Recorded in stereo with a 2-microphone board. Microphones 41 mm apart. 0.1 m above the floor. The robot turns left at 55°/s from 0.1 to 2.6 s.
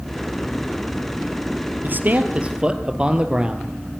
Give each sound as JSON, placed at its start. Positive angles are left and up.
{"t": 1.8, "sound": "a man speaking", "azimuth_deg": -110, "distance_m": 1.8}